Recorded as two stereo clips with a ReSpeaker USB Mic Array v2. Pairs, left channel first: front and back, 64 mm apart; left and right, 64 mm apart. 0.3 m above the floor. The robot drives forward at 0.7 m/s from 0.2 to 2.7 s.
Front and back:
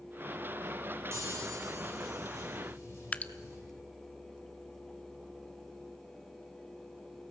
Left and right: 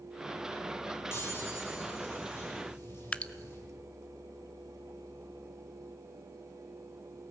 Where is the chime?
140° left, 9.5 m; by 3.6 s 145° left, 10.5 m.